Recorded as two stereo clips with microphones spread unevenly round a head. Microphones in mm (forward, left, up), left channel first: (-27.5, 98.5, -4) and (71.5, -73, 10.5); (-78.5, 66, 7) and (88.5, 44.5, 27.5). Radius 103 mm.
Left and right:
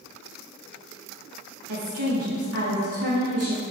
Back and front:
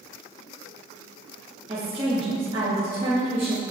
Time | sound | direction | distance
1.7 | a woman speaking | 75° right | 2.5 m